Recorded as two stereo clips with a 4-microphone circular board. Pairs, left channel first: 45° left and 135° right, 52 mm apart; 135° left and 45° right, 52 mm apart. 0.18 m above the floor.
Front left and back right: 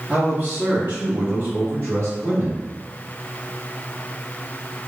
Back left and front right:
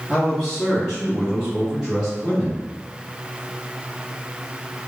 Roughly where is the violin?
I don't hear a violin.